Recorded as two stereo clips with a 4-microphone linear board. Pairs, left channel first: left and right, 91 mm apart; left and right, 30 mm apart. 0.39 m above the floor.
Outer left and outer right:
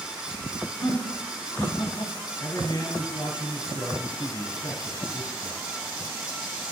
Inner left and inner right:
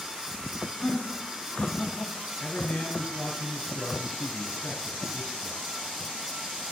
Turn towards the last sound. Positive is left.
turn(degrees=50)  # may be behind; listen again after turning